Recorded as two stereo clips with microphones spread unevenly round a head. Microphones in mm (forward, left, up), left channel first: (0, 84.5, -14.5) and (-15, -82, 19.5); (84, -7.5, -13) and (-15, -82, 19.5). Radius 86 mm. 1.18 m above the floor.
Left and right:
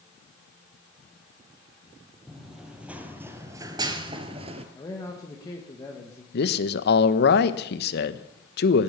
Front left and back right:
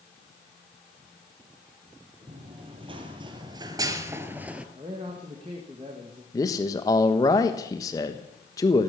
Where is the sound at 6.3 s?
105° left, 1.1 m.